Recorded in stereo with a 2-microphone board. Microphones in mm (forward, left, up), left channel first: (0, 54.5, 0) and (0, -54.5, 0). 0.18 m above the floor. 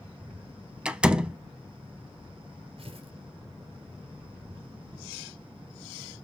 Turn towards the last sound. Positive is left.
turn(degrees=-60)  # may be behind; listen again after turning